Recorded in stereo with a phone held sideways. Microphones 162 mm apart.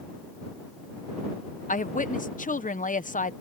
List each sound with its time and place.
1.7 s a woman speaking: 55° left (ahead or behind)